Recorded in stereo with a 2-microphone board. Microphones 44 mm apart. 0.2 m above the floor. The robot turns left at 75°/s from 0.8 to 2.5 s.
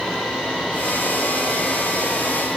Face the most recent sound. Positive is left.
No sound to turn to.